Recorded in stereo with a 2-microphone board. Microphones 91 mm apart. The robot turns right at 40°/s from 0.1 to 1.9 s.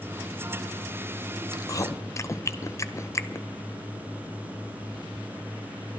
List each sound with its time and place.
1.5 s chewing: 45° left (ahead or behind), 0.5 m; by 3.5 s 30° left (ahead or behind), 0.5 m